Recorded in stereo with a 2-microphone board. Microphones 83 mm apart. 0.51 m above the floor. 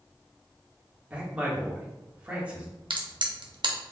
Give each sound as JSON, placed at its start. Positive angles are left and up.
{"t": 1.1, "sound": "a man speaking", "side_deg": -15, "distance_m": 1.2}
{"t": 2.9, "sound": "a crack", "side_deg": -70, "distance_m": 0.7}